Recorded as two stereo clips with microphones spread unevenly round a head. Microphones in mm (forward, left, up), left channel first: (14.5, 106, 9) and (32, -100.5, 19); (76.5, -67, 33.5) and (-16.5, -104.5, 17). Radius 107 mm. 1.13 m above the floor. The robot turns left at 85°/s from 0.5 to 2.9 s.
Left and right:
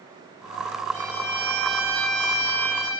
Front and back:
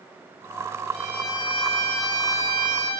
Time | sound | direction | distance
0.9 | a violin | 75° left | 2 m